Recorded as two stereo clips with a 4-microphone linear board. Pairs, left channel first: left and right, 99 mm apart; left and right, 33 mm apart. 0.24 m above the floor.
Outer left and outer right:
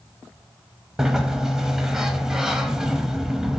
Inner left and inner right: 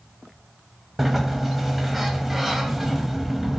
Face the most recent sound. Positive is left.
turn(degrees=-5)  # may be behind; listen again after turning